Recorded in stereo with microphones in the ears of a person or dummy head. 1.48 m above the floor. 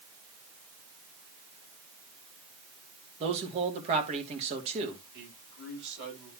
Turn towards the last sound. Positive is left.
turn(degrees=-60)  # may be behind; listen again after turning